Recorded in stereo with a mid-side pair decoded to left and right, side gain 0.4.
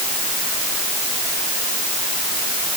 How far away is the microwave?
No microwave in this recording.